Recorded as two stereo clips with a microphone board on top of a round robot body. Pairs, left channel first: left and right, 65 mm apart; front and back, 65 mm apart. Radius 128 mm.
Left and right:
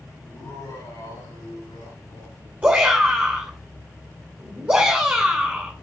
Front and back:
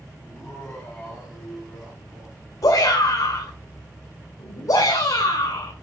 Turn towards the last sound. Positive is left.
turn(degrees=-20)